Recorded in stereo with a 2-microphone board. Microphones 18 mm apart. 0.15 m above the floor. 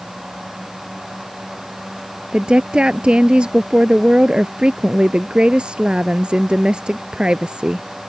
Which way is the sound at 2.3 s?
55° right (ahead or behind).